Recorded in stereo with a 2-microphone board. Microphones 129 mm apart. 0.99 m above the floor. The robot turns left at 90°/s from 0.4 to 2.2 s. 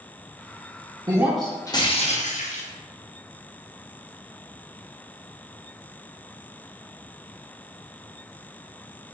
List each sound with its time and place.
1.1 s breaking glass: 150° right, 0.7 m; by 2.6 s 105° left, 0.7 m